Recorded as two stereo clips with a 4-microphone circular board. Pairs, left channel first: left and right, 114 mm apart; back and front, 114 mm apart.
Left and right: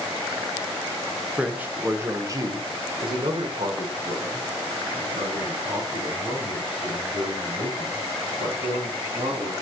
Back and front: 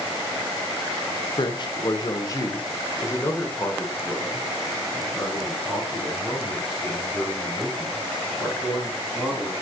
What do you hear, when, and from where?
1.4 s a man speaking: 170° right, 1.0 m; by 9.5 s 85° right, 4 m